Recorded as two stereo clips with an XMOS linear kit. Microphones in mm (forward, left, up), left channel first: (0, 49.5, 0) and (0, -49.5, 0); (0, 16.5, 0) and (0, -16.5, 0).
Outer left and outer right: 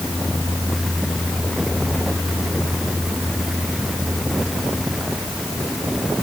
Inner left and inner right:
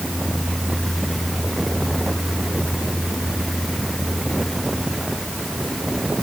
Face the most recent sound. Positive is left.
No sound to turn to.